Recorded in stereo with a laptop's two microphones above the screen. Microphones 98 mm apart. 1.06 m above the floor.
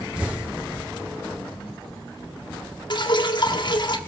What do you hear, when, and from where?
0.2 s an explosion: 10° right (ahead or behind), 0.8 m
2.9 s dripping: 50° left (ahead or behind), 1.1 m